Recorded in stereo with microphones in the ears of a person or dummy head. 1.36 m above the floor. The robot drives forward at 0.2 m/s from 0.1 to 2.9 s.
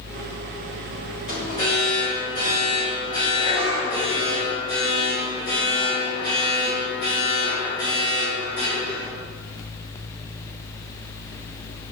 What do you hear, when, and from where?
1.3 s an alarm: 50° left (ahead or behind), 4.5 m